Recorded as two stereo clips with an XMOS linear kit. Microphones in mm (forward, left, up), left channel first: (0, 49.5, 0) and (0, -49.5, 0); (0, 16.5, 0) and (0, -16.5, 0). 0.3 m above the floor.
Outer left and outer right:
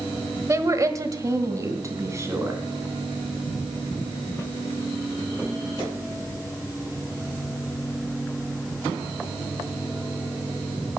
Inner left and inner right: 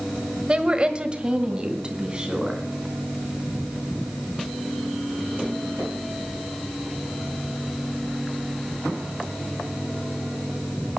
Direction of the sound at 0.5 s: 30° right (ahead or behind).